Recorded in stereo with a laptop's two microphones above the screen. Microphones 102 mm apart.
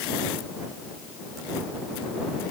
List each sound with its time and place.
Only background noise.